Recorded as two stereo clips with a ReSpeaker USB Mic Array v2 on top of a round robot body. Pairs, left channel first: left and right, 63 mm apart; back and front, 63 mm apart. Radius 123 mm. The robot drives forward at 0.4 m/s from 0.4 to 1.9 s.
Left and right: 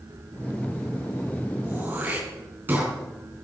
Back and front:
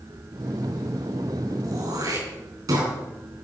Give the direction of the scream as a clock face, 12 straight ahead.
No scream in this recording.